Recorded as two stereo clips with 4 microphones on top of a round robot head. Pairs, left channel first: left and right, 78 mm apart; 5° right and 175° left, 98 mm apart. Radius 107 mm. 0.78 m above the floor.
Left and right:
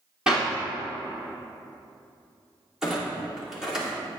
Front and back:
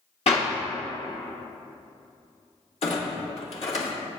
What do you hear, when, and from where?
0.3 s a clap: 10° right, 2.5 m
2.8 s a clunk: 5° right, 2 m